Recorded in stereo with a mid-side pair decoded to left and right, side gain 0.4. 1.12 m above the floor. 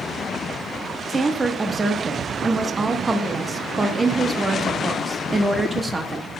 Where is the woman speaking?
30° right, 1.2 m.